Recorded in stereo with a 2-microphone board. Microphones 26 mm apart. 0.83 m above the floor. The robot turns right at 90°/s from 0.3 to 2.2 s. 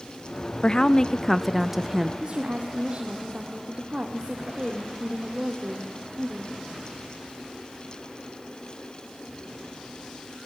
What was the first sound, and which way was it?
A woman speaking, 100° left.